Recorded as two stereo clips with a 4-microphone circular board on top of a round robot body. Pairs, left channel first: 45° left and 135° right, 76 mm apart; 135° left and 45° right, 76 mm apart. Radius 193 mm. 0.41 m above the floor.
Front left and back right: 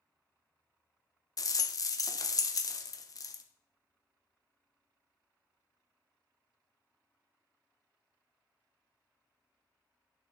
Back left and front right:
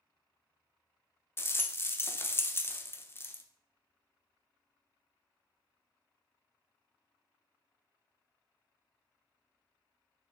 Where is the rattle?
80° left, 1.0 m.